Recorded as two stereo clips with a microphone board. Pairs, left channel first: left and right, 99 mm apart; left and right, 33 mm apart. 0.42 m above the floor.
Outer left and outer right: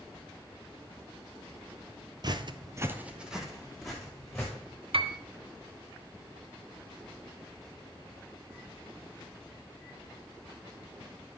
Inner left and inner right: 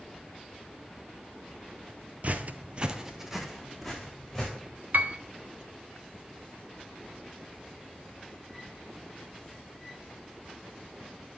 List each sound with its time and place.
2.2 s footsteps: 45° right (ahead or behind), 0.7 m; by 4.5 s 5° left (ahead or behind), 3 m
4.9 s a piano: 65° right (ahead or behind), 0.6 m